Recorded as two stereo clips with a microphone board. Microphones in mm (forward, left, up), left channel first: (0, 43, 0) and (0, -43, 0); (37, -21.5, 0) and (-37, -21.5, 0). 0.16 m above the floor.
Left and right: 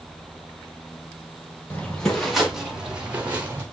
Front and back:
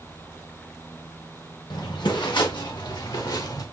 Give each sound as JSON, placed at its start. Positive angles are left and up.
{"t": 1.7, "sound": "footsteps", "azimuth_deg": 15, "distance_m": 3.0}